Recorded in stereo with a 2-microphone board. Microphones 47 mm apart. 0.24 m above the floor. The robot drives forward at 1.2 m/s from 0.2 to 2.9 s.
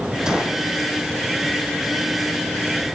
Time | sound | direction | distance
0.3 | a gunshot | 15° right (ahead or behind) | 5.5 m